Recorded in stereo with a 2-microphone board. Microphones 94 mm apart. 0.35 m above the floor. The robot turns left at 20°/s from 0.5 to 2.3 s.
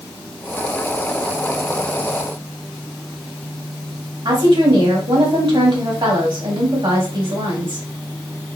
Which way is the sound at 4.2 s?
60° right (ahead or behind).